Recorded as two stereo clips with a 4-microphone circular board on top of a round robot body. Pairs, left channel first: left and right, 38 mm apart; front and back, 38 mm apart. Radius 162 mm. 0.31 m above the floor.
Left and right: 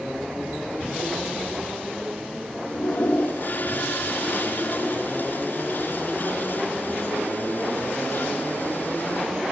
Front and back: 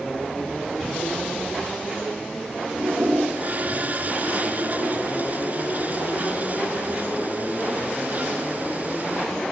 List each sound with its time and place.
2.7 s a toilet flushing: 130° left, 2.5 m